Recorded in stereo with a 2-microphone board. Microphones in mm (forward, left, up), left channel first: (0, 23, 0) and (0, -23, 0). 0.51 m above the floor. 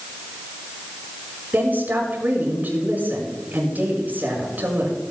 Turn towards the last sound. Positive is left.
turn(degrees=-45)  # may be behind; listen again after turning